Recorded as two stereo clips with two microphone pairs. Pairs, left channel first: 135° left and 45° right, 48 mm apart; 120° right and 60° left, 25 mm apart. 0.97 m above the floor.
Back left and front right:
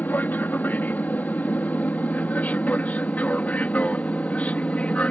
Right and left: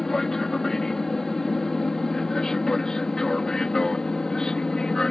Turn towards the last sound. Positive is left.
turn(degrees=-175)